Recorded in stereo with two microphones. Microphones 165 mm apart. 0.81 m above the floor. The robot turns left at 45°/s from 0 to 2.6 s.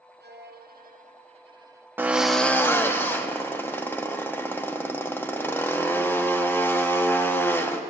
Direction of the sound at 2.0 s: 15° right (ahead or behind).